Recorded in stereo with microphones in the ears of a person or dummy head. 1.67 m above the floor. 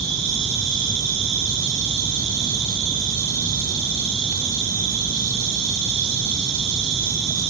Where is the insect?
60° right (ahead or behind), 2.5 m.